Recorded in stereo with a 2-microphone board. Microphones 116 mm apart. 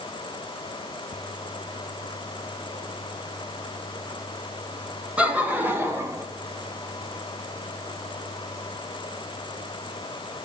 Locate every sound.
5.2 s laughter: 10° right (ahead or behind), 3 m; by 6.2 s 30° right (ahead or behind), 2.5 m